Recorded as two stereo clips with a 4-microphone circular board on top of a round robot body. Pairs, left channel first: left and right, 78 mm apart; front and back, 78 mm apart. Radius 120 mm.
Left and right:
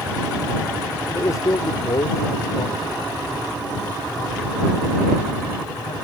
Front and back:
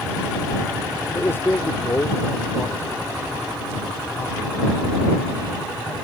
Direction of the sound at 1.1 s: 55° left.